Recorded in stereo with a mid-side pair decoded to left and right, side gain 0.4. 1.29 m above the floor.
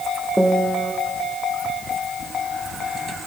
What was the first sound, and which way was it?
A piano, 5° right.